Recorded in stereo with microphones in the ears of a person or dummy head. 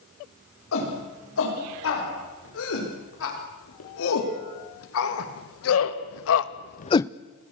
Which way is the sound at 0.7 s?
75° left (ahead or behind).